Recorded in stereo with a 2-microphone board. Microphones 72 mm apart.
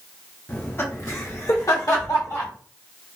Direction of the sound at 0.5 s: 25° left (ahead or behind).